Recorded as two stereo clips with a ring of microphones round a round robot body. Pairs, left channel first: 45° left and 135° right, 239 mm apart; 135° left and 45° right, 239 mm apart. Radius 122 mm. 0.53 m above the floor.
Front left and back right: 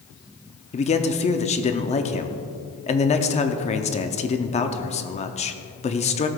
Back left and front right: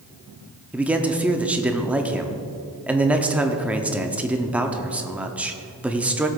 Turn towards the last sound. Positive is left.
turn(degrees=35)